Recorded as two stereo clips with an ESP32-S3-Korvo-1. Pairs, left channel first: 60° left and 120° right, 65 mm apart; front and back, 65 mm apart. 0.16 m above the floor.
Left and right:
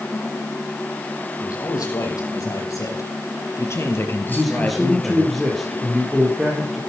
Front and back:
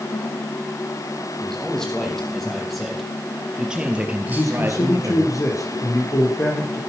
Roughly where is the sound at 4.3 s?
Ahead right.